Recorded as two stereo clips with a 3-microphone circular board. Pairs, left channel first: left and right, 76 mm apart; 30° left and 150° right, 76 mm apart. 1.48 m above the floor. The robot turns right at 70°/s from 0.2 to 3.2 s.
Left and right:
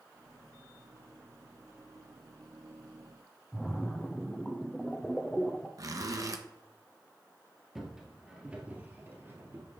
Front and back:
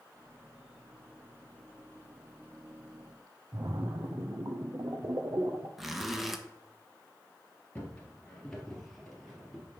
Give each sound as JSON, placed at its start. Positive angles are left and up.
{"t": 3.5, "sound": "a splash", "azimuth_deg": 180, "distance_m": 0.8}
{"t": 5.8, "sound": "a zipper", "azimuth_deg": -60, "distance_m": 0.8}
{"t": 7.8, "sound": "footsteps", "azimuth_deg": -5, "distance_m": 1.5}